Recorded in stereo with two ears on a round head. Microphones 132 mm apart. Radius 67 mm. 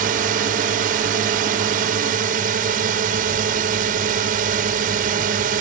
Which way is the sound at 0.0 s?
60° right (ahead or behind).